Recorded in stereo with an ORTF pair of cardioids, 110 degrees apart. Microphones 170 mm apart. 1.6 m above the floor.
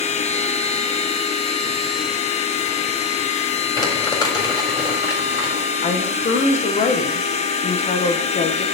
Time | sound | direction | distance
0.0 | a machine running | 40° left | 1.0 m
3.8 | crumpling | 25° left | 4 m
5.8 | a woman speaking | 45° left | 1.5 m